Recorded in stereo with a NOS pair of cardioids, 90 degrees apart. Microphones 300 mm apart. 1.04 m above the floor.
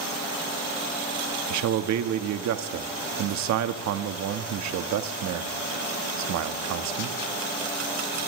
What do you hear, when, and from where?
1.5 s a man speaking: 70° right, 1.4 m